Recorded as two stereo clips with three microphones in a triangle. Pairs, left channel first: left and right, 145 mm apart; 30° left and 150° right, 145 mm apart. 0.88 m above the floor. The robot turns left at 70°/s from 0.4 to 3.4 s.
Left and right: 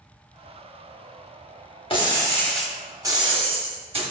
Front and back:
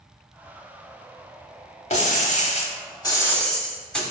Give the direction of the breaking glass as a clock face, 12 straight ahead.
10 o'clock.